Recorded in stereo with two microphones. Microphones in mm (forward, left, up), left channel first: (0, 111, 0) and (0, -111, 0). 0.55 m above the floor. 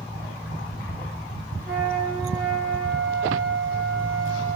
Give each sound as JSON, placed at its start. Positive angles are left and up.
{"t": 1.6, "sound": "a flute", "side_deg": 5, "distance_m": 6.0}